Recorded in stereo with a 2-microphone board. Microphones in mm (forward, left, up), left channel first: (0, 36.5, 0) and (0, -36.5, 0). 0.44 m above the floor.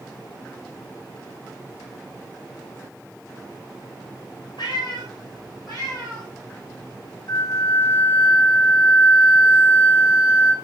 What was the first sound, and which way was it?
A cat meowing, 75° left (ahead or behind).